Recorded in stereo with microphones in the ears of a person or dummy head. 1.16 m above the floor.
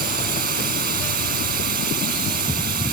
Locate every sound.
0.0 s a drone: 55° right (ahead or behind)